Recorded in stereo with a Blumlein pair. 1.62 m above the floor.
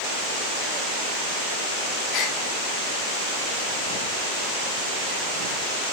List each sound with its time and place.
2.1 s a gasp: 25° left, 2 m